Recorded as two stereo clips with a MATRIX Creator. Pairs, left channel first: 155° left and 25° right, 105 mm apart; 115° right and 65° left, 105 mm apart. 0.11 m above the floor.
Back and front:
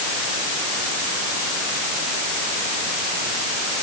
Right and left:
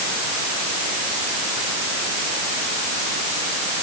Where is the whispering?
I don't hear whispering.